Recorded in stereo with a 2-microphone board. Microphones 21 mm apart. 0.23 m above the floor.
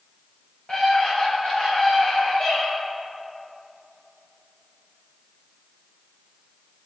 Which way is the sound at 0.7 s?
55° left (ahead or behind).